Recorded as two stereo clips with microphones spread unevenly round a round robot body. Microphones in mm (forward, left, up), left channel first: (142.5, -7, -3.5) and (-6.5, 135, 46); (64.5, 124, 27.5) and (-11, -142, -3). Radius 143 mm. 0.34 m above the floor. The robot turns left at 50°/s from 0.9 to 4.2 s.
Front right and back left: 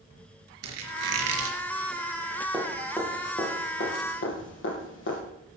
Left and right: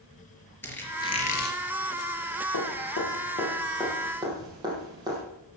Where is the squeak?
155° left, 3.5 m; by 1.6 s 125° left, 3.5 m.